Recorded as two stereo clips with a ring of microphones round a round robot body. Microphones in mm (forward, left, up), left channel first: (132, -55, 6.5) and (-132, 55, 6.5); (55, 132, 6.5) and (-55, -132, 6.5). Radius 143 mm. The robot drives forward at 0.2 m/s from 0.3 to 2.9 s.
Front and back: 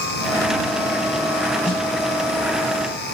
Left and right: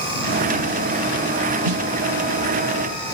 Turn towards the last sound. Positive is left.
turn(degrees=-120)